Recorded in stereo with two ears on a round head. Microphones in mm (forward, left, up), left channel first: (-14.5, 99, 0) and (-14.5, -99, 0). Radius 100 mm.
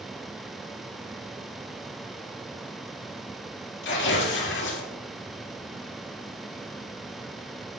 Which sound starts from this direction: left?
Tearing paper, at 3.8 s.